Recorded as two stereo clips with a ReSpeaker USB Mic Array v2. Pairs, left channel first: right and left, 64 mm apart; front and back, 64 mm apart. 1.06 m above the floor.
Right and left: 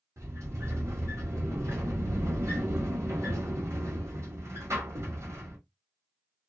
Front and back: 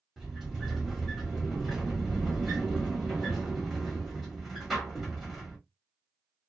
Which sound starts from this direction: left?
A sliding door, at 0.2 s.